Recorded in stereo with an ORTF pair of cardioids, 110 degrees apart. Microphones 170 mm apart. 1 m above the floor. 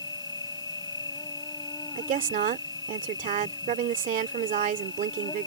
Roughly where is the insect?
Ahead left.